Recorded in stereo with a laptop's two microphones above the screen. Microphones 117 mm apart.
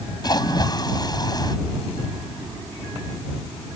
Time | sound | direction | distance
0.2 | a splash | 35° left (ahead or behind) | ?